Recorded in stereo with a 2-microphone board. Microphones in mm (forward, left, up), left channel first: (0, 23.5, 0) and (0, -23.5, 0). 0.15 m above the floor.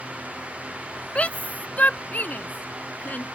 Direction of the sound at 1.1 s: 30° left (ahead or behind).